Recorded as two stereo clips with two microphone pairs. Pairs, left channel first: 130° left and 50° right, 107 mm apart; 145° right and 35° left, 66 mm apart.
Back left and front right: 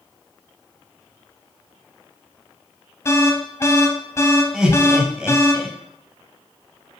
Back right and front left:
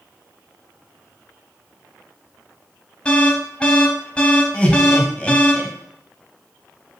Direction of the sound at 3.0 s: 160° left.